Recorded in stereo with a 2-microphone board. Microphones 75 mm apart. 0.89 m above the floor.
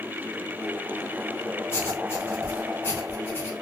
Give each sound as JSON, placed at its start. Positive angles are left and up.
{"t": 1.7, "sound": "writing", "side_deg": 35, "distance_m": 1.0}